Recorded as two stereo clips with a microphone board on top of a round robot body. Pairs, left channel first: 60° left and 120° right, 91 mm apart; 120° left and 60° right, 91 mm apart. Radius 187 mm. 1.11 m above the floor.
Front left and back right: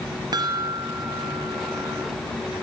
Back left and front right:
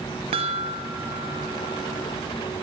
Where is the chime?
75° right, 0.6 m.